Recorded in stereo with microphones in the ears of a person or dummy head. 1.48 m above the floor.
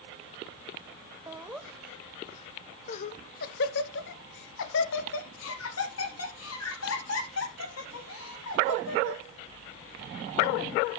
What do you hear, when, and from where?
1.3 s laughter: 15° right (ahead or behind), 1.0 m; by 9.2 s 85° left, 4 m